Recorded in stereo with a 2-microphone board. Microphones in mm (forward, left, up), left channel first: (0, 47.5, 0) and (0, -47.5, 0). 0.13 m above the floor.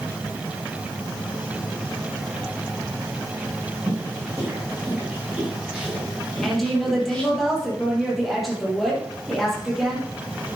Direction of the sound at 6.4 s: Centre (ahead or behind).